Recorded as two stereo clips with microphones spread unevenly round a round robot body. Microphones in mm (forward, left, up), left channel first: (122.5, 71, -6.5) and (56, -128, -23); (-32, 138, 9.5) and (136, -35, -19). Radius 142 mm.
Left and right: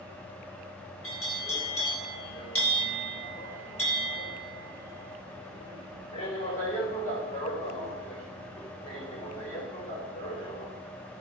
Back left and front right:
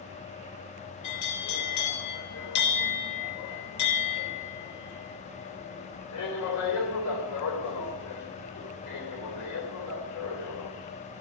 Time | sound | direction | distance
1.0 | a bell | 140° left | 3 m